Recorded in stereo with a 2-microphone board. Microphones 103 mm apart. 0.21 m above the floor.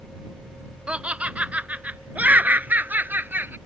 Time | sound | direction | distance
0.9 | laughter | 10° right (ahead or behind) | ?